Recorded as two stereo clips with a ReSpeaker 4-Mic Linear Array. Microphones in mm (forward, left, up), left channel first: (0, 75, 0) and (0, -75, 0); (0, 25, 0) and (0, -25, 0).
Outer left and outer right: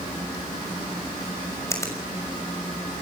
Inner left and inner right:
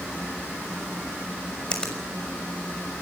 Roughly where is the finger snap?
Centre.